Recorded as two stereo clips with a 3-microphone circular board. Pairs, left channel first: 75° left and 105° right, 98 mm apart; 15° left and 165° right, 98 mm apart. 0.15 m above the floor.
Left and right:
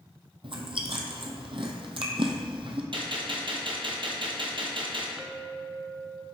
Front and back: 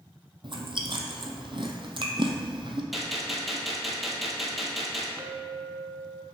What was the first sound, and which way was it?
Chewing, 130° right.